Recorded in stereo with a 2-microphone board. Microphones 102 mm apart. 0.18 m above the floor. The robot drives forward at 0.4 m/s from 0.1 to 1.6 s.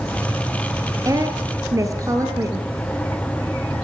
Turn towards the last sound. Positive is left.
turn(degrees=-35)  # may be behind; listen again after turning